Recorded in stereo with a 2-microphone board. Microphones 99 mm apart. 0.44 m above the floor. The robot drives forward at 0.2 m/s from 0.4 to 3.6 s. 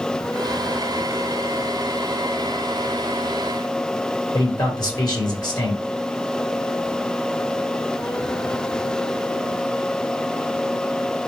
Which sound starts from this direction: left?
A man speaking, at 4.3 s.